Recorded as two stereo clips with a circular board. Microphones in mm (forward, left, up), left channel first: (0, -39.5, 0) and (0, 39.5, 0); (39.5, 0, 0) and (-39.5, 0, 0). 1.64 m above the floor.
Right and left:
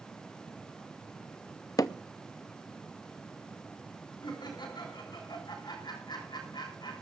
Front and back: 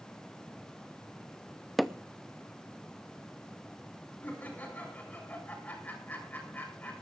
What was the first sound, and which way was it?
Hammering, 90° right.